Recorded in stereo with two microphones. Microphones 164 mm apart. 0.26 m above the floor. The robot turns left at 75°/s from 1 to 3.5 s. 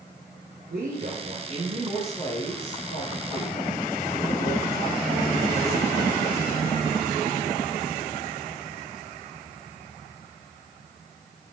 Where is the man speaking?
100° right, 7 m; by 6.7 s 75° left, 7 m.